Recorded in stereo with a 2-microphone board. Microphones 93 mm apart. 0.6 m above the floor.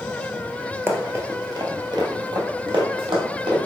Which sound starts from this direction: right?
Running footsteps, at 0.9 s.